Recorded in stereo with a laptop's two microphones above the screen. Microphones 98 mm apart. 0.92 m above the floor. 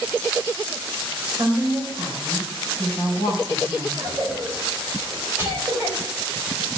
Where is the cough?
30° right (ahead or behind), 4.5 m.